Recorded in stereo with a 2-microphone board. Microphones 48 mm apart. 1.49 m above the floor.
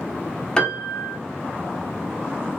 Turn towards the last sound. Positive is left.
turn(degrees=20)  # may be behind; listen again after turning